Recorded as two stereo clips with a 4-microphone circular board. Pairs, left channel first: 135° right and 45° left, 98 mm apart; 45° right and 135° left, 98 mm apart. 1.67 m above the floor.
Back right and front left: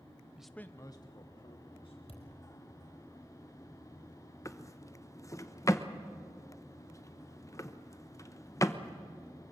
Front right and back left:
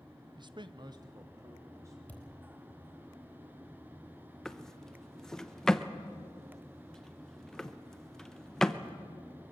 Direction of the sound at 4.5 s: 125° right.